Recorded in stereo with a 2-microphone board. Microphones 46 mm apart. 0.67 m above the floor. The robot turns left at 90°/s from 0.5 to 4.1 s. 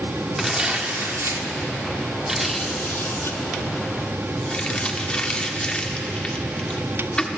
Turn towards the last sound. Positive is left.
turn(degrees=25)  # may be behind; listen again after turning